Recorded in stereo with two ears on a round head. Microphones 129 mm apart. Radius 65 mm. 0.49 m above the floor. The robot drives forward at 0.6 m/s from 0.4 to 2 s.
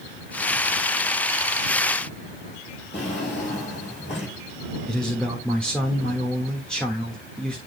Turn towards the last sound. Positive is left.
turn(degrees=5)  # may be behind; listen again after turning